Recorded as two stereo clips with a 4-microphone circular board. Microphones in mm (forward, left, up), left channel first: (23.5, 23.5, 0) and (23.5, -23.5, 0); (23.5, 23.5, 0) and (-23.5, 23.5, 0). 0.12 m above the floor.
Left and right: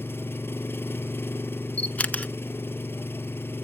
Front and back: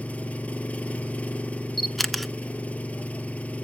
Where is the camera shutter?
90° left, 0.6 m.